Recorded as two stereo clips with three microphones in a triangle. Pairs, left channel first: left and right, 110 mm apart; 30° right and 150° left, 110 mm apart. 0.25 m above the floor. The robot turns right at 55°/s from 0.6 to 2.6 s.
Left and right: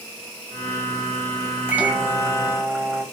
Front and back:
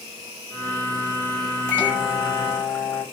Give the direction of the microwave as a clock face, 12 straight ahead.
2 o'clock.